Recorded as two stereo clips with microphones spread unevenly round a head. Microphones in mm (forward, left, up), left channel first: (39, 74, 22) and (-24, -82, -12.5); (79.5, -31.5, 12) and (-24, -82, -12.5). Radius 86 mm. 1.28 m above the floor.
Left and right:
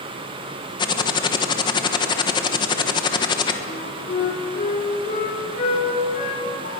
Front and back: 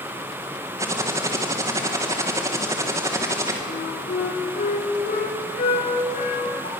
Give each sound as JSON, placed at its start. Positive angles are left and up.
{"t": 0.8, "sound": "typing on a keyboard", "azimuth_deg": 135, "distance_m": 1.2}
{"t": 3.7, "sound": "a flute", "azimuth_deg": 25, "distance_m": 4.5}